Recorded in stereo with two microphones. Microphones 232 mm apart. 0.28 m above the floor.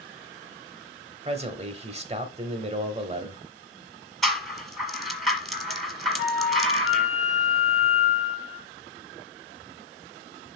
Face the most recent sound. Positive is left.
turn(degrees=65)  # may be behind; listen again after turning